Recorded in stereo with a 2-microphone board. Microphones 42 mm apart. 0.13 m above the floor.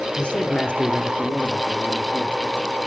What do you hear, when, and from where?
0.2 s a man speaking: 25° left (ahead or behind), 1.2 m